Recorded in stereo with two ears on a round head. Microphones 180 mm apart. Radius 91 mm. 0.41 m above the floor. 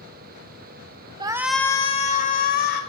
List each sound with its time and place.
1.2 s a shout: 20° right (ahead or behind), 0.8 m; by 2.8 s 45° left (ahead or behind), 1.7 m